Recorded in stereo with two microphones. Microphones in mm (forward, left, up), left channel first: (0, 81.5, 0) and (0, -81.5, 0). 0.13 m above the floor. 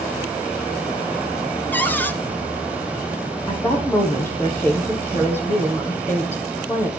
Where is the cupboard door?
10° left (ahead or behind), 0.9 m.